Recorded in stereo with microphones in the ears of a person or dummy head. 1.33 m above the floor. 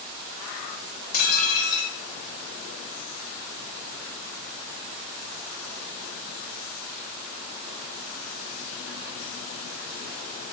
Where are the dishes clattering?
50° left (ahead or behind), 1.7 m.